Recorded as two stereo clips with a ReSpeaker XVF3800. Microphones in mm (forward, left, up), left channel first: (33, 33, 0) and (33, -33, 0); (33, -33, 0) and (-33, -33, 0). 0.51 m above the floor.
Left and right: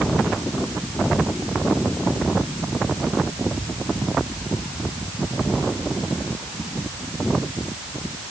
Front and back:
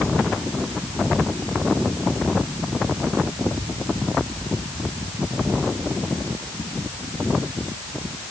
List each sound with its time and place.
Only background noise.